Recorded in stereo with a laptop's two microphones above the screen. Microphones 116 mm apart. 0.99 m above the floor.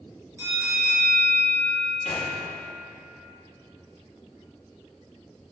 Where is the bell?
20° right (ahead or behind), 2.5 m.